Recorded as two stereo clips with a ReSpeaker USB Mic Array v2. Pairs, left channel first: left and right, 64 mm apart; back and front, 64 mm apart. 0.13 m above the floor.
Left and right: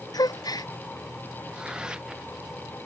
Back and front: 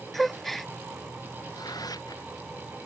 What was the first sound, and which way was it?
A gasp, 95° left.